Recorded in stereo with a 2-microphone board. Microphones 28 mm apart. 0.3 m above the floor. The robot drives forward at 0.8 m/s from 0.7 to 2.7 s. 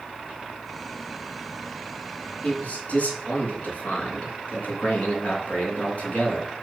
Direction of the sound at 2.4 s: 55° left (ahead or behind).